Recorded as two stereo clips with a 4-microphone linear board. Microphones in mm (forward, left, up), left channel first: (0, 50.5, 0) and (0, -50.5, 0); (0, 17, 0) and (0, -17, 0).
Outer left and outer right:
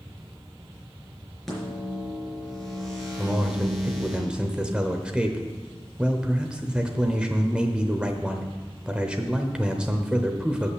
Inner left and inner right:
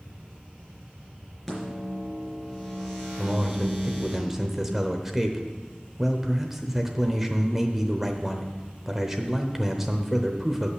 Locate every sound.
1.5 s a microwave: centre (ahead or behind), 4 m
3.2 s a man speaking: 10° right (ahead or behind), 0.8 m